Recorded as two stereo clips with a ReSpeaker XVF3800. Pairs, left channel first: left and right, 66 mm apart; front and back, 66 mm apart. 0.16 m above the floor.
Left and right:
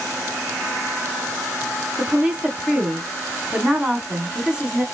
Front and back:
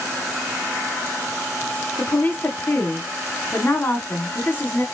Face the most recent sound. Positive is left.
turn(degrees=-25)